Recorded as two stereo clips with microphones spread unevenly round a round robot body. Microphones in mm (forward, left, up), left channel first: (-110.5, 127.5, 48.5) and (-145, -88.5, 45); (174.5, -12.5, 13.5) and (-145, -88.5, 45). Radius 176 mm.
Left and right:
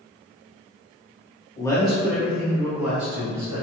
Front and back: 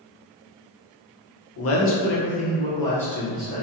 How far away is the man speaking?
About 0.8 m.